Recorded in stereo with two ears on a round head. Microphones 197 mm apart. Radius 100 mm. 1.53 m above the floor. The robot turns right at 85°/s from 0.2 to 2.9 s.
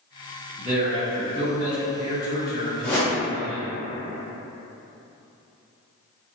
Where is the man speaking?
45° right, 0.8 m; by 3.7 s 155° left, 0.8 m.